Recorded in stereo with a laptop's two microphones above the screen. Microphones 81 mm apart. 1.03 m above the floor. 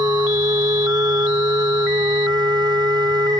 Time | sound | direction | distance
0.0 | a machine running | 65° right (ahead or behind) | ?